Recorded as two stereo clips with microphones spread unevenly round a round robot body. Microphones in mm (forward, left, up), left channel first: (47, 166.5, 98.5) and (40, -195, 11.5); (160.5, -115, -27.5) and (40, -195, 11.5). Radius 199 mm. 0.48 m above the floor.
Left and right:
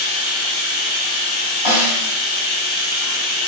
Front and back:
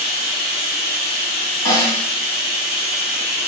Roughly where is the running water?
Behind left.